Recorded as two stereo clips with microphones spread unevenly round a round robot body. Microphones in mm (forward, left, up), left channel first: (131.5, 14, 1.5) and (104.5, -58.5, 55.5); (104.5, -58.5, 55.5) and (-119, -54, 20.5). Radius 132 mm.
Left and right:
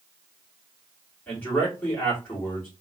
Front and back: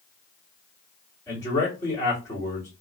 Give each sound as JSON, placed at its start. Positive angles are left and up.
{"t": 1.3, "sound": "a man speaking", "azimuth_deg": 80, "distance_m": 2.0}